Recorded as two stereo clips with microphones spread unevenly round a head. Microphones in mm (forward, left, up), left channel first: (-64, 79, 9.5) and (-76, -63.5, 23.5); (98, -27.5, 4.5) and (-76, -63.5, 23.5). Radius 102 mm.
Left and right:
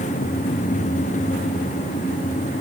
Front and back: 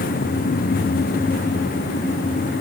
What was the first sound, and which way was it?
Only background noise.